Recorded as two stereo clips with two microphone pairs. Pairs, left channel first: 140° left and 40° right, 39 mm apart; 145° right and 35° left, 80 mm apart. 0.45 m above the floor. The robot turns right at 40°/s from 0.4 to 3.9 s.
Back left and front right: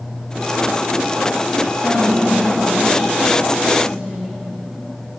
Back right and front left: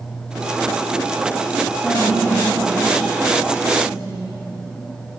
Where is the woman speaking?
80° right, 2.5 m; by 4.4 s 5° left, 2.5 m.